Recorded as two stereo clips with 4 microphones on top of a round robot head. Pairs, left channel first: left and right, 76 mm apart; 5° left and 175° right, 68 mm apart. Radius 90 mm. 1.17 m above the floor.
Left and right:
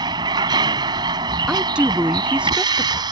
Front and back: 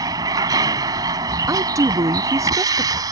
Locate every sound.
0.0 s a vehicle: 130° right
1.5 s a woman speaking: 165° right